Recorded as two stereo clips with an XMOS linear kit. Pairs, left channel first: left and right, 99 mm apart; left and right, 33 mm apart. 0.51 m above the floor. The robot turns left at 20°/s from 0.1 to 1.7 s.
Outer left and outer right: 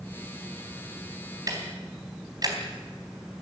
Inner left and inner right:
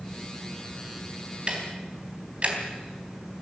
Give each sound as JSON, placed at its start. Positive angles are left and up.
{"t": 1.5, "sound": "ticking", "side_deg": -35, "distance_m": 3.5}